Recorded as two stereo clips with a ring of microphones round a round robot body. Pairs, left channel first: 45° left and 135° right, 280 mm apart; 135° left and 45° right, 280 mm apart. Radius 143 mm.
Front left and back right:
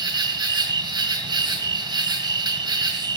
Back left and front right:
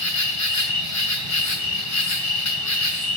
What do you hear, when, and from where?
0.0 s an insect: 150° left, 2 m